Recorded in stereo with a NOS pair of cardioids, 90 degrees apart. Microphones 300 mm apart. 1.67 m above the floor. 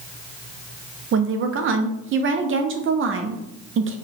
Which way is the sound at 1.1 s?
45° right.